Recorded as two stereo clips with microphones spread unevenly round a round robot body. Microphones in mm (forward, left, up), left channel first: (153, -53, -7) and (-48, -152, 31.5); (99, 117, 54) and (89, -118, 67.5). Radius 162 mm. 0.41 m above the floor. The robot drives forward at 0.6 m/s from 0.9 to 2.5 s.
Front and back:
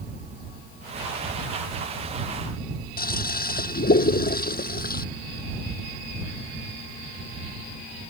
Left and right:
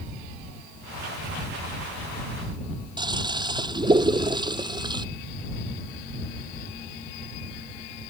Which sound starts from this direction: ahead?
A toilet flushing, at 3.0 s.